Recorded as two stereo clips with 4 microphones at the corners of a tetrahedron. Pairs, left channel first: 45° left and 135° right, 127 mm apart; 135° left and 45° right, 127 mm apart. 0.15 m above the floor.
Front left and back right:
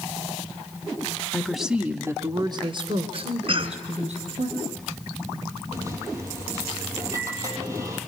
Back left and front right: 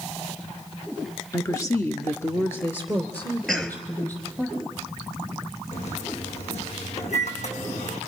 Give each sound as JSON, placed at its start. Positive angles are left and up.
{"t": 1.3, "sound": "a woman speaking", "azimuth_deg": 110, "distance_m": 1.7}
{"t": 3.5, "sound": "a cough", "azimuth_deg": -140, "distance_m": 2.0}
{"t": 5.7, "sound": "a microwave", "azimuth_deg": 160, "distance_m": 4.5}